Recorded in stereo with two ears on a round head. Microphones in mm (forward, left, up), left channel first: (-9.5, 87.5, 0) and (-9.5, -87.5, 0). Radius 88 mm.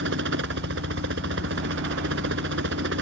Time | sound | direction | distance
0.0 | a helicopter | 65° right (ahead or behind) | ?